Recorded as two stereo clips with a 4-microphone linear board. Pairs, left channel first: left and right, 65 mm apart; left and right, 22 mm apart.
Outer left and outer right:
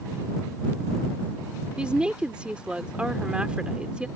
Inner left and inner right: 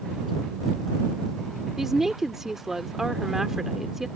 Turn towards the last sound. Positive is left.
turn(degrees=-15)  # may be behind; listen again after turning